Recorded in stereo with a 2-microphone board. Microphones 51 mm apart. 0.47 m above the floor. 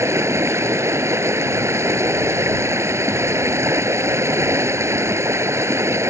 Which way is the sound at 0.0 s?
75° right (ahead or behind).